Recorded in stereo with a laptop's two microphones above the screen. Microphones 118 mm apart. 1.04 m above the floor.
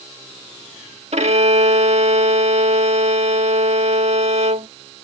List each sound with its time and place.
1.1 s a violin: 65° right (ahead or behind)